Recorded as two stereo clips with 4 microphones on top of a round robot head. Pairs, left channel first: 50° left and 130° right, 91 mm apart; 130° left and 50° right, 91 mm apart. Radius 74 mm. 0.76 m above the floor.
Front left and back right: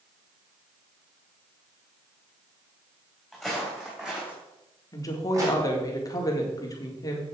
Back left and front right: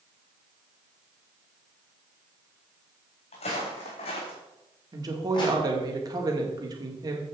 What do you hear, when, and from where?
3.3 s footsteps: 140° left, 3.5 m; by 5.6 s 175° left, 2.5 m
4.9 s a woman speaking: straight ahead, 1.9 m